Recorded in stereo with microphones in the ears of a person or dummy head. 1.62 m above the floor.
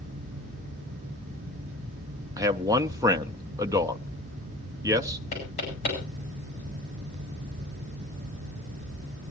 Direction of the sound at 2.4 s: 20° right (ahead or behind).